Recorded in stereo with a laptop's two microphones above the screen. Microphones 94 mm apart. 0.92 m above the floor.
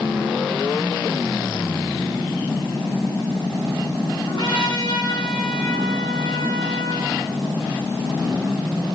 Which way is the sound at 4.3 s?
50° left (ahead or behind).